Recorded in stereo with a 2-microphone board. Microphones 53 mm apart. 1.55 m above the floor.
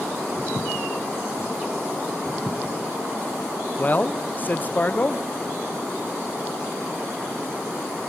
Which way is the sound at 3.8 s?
35° left (ahead or behind).